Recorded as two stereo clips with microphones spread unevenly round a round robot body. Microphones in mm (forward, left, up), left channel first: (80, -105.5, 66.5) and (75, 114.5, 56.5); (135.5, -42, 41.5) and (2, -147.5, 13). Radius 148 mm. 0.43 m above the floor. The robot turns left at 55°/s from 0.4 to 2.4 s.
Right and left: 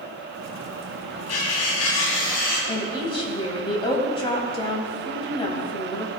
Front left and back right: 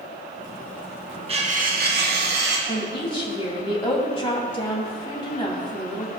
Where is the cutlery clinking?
90° right, 2.5 m; by 2.6 s 150° right, 2.5 m.